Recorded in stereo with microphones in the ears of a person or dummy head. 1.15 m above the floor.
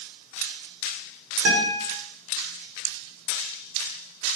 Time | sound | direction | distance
1.4 | a guitar | 70° right (ahead or behind) | 4.5 m